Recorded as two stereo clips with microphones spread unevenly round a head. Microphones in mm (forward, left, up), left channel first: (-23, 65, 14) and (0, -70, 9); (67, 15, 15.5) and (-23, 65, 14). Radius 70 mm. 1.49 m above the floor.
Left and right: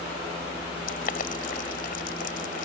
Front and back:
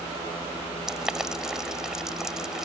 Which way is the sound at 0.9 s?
65° left.